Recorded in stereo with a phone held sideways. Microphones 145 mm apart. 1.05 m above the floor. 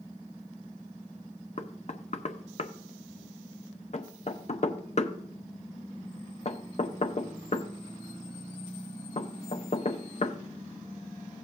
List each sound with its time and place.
1.6 s knocking: 50° left (ahead or behind), 0.7 m